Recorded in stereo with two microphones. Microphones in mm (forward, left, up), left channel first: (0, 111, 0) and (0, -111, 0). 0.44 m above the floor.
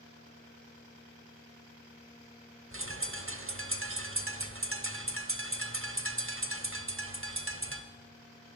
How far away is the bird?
About 0.7 m.